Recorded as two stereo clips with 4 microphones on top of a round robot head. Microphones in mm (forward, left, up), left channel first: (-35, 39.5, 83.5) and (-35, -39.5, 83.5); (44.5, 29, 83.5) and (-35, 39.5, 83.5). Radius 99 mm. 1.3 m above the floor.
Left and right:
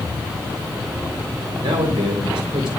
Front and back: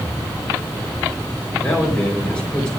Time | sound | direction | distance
1.6 | a man speaking | 85° right | 4 m